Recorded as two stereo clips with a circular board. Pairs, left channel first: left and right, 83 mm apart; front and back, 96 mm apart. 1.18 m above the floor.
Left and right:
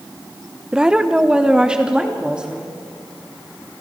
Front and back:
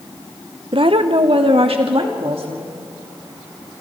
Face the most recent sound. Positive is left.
turn(degrees=-170)